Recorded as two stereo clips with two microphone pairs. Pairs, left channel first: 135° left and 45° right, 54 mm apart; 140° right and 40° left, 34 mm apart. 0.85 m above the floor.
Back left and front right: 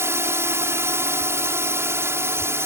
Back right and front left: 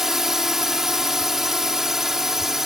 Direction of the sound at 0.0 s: 35° right.